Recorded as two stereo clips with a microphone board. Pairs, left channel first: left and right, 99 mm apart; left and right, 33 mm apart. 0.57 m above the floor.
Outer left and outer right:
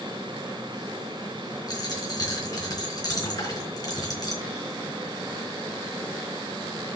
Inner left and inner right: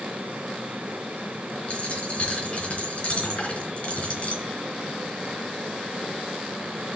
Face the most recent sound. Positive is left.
turn(degrees=40)  # may be behind; listen again after turning